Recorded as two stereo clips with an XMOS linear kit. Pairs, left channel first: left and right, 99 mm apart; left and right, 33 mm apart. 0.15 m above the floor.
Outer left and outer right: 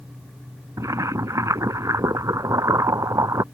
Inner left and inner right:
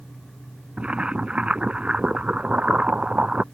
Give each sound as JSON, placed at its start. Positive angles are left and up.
{"t": 0.8, "sound": "boiling", "side_deg": -35}